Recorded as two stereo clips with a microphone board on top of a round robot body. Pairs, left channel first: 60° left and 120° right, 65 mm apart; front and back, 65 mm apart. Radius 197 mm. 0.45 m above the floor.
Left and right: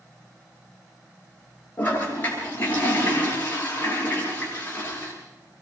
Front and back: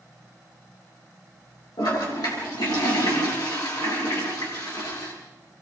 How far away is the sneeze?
No sneeze in this recording.